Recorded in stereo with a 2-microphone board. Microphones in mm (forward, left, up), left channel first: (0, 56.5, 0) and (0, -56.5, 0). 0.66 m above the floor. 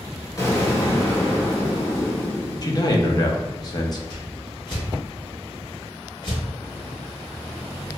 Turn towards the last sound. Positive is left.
turn(degrees=40)  # may be behind; listen again after turning